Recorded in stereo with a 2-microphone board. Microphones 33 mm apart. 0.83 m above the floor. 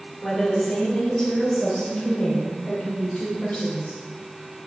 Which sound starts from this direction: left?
A woman speaking, at 0.2 s.